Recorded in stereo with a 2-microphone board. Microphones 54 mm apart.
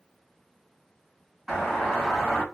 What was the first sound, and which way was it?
A doorbell, 5° right (ahead or behind).